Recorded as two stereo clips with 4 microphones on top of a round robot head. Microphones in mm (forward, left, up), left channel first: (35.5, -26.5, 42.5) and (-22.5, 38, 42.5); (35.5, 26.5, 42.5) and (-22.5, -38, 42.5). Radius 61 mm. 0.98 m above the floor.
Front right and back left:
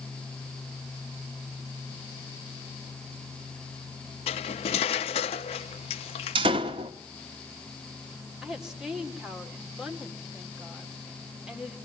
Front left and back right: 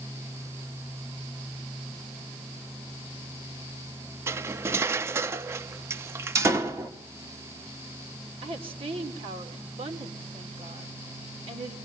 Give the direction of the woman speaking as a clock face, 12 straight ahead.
5 o'clock.